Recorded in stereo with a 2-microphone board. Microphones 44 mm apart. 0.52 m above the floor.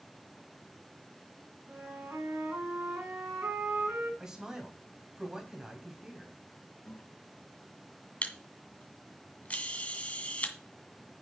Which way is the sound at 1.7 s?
55° right (ahead or behind).